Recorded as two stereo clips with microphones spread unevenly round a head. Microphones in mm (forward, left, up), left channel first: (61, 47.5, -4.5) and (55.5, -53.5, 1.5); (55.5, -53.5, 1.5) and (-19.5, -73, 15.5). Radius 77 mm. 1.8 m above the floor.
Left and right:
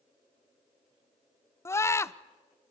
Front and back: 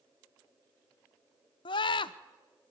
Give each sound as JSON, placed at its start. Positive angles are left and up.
{"t": 1.6, "sound": "a scream", "azimuth_deg": 25, "distance_m": 0.8}